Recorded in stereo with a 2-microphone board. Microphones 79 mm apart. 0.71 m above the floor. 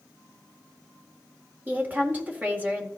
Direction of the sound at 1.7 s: 25° right (ahead or behind).